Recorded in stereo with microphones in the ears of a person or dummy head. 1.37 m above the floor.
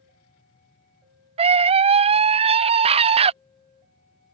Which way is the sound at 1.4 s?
35° right (ahead or behind).